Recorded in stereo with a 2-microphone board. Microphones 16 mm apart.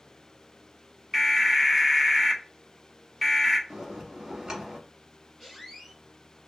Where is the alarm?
Centre (ahead or behind), 1.4 m.